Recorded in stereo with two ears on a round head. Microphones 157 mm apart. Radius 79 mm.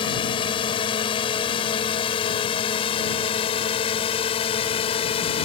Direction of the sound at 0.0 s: 30° left (ahead or behind).